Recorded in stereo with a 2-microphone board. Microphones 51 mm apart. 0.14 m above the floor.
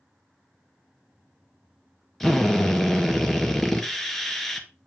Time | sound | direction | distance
2.2 | a drill | 5° left (ahead or behind) | 1.4 m